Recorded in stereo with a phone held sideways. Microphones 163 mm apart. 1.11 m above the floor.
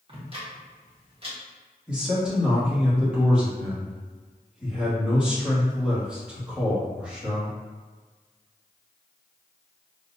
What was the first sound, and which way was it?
Ticking, 35° right (ahead or behind).